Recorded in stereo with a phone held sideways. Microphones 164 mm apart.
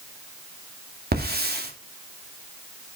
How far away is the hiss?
About 2.5 m.